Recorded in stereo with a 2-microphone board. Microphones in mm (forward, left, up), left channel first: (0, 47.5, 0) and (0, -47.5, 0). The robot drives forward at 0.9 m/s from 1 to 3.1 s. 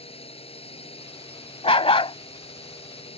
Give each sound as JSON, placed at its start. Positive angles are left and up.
{"t": 0.0, "sound": "a drone", "side_deg": 85}
{"t": 1.6, "sound": "a dog barking", "side_deg": 85}